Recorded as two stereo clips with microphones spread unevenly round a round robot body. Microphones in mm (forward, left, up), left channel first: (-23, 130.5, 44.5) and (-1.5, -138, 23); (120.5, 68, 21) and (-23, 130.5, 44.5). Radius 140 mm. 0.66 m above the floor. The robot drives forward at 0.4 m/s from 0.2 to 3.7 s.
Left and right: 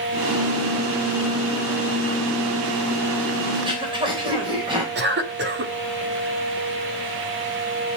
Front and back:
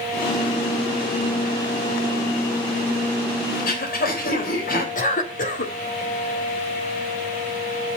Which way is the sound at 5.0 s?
45° right.